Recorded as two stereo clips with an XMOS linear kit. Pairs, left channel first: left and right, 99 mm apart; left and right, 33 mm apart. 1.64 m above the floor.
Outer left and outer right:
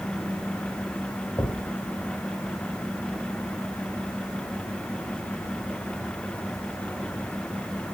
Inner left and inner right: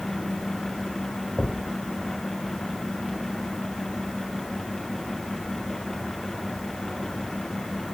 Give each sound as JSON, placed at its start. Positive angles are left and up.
{"t": 1.4, "sound": "a thud", "side_deg": 30, "distance_m": 2.5}